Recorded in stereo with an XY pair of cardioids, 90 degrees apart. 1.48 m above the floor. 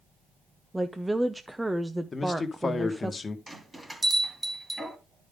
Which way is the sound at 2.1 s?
35° left.